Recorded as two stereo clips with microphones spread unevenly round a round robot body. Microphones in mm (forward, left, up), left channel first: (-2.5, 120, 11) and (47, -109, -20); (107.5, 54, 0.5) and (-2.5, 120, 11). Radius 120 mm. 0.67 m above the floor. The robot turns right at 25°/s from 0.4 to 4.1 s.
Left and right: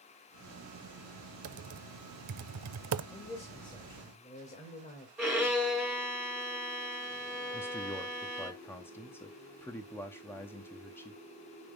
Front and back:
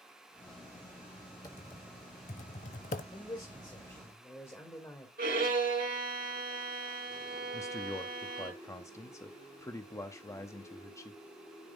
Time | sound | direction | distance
1.4 | typing on a keyboard | 105° right | 0.6 m
3.1 | a man speaking | 15° left | 2 m
5.2 | a violin | 170° right | 2 m
7.5 | a man speaking | 15° left | 0.7 m